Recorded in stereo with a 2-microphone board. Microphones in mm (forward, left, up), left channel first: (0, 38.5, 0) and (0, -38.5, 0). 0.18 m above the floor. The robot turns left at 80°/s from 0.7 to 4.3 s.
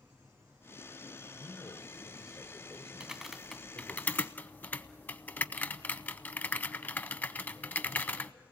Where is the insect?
45° right, 6.5 m; by 8.5 s 25° left, 6.5 m.